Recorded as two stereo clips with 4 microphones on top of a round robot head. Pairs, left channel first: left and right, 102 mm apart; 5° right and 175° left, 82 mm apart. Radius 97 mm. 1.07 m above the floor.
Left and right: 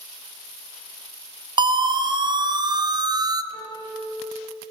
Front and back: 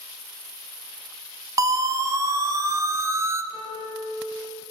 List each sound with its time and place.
1.6 s a siren: 135° right, 2.5 m
3.5 s a piano: 15° left, 4.5 m